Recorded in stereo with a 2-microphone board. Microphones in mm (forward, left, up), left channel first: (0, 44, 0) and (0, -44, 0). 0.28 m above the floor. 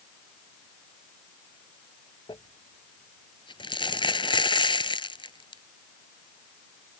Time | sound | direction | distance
2.3 | crumpling | 65° left (ahead or behind) | ?